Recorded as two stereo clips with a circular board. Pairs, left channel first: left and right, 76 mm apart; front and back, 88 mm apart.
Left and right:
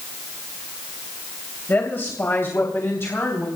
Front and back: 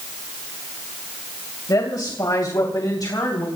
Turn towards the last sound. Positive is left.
turn(degrees=40)